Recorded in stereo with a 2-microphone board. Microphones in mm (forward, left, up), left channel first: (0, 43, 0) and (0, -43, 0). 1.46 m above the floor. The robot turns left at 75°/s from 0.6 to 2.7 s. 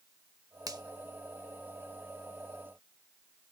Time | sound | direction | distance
0.7 | a finger snap | 45° right (ahead or behind) | 0.9 m